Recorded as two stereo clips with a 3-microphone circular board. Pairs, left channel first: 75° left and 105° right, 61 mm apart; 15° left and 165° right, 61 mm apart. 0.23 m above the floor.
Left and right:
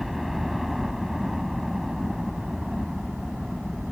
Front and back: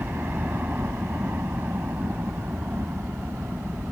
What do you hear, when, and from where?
0.0 s a helicopter: 170° left; by 3.9 s 175° left